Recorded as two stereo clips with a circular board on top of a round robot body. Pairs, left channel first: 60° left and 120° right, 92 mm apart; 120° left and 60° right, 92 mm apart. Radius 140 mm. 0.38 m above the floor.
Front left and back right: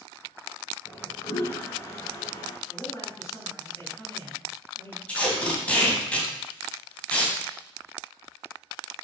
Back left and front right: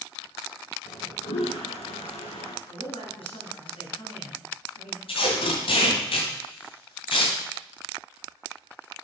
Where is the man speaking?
120° left, 4 m.